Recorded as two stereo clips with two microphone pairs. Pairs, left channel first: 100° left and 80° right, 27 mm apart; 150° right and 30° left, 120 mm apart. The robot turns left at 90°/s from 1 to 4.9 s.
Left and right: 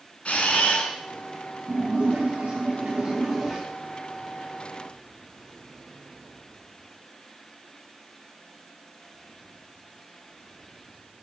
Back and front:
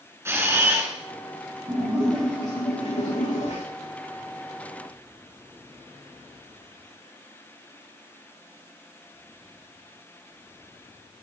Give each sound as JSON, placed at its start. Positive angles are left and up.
{"t": 0.2, "sound": "a camera shutter", "azimuth_deg": 95, "distance_m": 3.0}
{"t": 1.7, "sound": "a splash", "azimuth_deg": -15, "distance_m": 8.0}